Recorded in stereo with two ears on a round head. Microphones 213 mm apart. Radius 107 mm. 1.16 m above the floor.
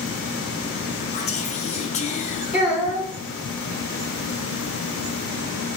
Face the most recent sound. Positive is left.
turn(degrees=-5)  # may be behind; listen again after turning